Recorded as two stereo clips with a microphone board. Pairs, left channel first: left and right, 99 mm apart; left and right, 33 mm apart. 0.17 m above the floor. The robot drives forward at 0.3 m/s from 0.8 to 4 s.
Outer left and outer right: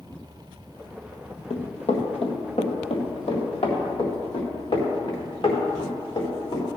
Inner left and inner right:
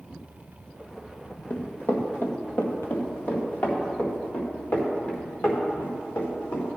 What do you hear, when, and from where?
1.5 s running footsteps: 80° left, 2.5 m; by 6.8 s 55° left (ahead or behind), 5.5 m